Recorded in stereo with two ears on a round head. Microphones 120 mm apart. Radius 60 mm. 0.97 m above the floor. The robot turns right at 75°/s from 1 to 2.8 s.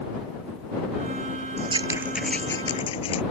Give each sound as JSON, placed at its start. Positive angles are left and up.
{"t": 1.6, "sound": "scissors", "side_deg": -50}